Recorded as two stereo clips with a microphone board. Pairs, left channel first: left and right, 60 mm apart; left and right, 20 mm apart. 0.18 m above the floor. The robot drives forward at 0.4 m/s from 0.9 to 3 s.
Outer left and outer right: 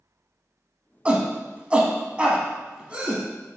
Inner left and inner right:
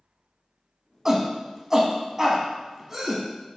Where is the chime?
No chime in this recording.